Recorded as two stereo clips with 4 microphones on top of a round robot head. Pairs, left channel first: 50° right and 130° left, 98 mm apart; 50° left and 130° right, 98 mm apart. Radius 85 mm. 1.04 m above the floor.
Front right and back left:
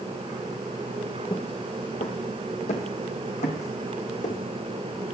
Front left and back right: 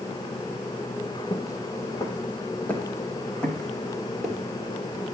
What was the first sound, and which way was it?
Footsteps, 5° right.